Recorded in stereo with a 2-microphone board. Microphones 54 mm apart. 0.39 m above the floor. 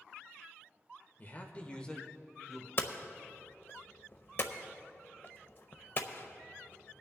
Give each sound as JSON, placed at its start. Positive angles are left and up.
{"t": 1.2, "sound": "a man speaking", "side_deg": 35, "distance_m": 1.2}
{"t": 2.8, "sound": "hammering", "side_deg": 50, "distance_m": 0.7}